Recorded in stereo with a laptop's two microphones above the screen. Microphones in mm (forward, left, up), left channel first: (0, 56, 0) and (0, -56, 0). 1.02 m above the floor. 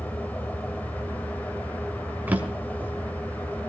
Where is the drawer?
15° right (ahead or behind), 1.5 m.